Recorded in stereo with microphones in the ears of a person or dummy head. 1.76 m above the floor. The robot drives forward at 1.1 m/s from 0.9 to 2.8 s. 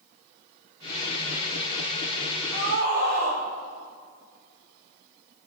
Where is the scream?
90° right, 5 m; by 3.4 s 85° right, 5 m.